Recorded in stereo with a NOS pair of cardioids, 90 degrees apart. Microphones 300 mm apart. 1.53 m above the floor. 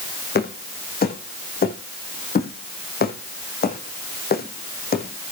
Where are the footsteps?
35° left, 5 m.